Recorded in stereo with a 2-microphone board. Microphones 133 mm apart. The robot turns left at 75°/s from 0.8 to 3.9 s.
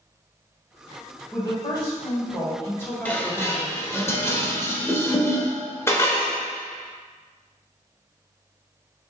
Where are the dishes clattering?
10° left (ahead or behind), 0.7 m; by 6.4 s 20° left (ahead or behind), 0.7 m.